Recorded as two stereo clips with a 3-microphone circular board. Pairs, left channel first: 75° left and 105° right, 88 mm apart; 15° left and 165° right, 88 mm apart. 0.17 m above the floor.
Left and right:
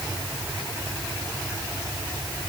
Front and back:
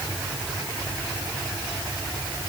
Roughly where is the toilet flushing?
I don't hear a toilet flushing.